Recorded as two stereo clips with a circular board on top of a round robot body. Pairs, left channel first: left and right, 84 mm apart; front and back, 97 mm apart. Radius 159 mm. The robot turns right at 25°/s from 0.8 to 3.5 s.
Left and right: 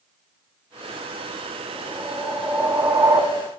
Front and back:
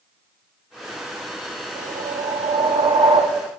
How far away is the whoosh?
About 0.9 m.